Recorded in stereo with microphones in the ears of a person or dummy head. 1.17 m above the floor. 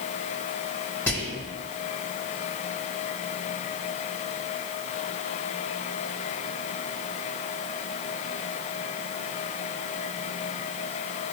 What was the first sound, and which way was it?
Whispering, 15° left (ahead or behind).